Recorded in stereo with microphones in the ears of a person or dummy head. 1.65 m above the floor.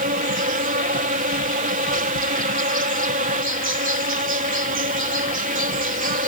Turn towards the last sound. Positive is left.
turn(degrees=-40)  # may be behind; listen again after turning